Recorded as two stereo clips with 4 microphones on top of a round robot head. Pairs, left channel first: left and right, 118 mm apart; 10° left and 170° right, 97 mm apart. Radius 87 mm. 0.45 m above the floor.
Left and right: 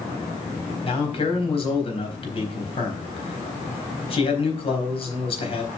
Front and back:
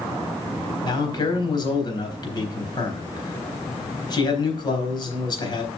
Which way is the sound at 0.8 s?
50° left.